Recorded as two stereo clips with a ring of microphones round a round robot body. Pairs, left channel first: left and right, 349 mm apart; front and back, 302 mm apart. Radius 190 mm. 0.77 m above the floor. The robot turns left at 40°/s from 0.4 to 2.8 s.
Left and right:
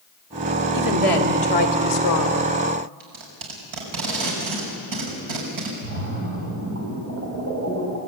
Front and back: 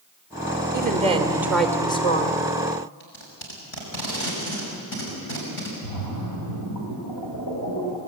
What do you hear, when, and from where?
0.7 s a woman speaking: 125° left, 3 m; by 2.5 s 55° left, 3 m
3.0 s tape being pulled: 60° right, 6 m
5.8 s a splash: 40° right, 6.5 m